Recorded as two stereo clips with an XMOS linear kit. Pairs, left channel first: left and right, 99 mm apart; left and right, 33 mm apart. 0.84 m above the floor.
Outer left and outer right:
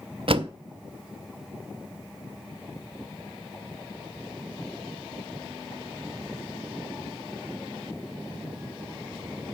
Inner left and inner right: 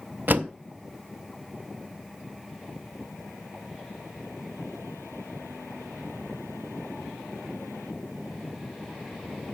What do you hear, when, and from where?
0.3 s a door slam: 65° right (ahead or behind), 0.6 m